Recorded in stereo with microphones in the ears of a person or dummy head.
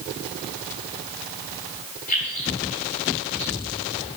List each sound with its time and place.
2.1 s keys jangling: 40° left (ahead or behind), 4 m; by 4.2 s 25° left (ahead or behind), 4 m